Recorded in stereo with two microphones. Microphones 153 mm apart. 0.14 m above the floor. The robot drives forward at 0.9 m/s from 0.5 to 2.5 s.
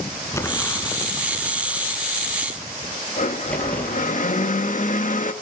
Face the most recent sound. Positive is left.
turn(degrees=60)  # may be behind; listen again after turning